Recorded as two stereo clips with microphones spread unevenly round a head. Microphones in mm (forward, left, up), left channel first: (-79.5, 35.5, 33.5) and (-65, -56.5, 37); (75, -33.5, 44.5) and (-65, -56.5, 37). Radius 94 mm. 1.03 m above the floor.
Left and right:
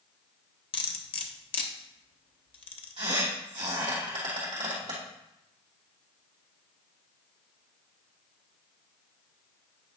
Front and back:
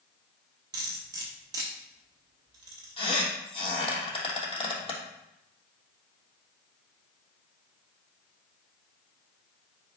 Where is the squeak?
35° right, 3 m.